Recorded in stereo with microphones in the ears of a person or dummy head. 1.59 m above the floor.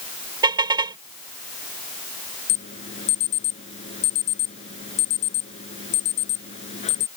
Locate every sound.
0.4 s a car horn: 15° right (ahead or behind)
2.5 s an alarm: 40° left (ahead or behind)